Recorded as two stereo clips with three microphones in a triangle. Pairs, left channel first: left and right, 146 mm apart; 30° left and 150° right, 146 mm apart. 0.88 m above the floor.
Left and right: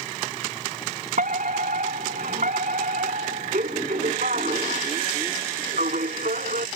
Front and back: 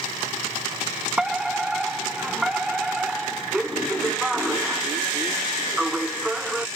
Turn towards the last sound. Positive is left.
turn(degrees=-65)